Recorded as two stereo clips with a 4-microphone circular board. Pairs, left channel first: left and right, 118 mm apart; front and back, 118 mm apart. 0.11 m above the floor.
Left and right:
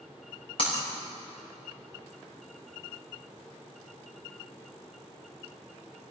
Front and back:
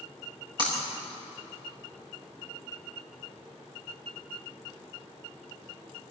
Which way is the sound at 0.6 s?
130° left.